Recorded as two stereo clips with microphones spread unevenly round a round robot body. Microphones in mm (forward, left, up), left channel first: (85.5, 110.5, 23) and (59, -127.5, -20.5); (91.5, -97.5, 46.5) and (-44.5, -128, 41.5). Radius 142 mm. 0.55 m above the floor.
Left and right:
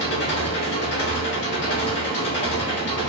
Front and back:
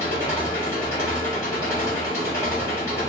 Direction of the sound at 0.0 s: 75° left.